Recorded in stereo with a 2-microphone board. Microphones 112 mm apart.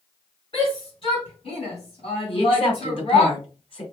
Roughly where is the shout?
Left.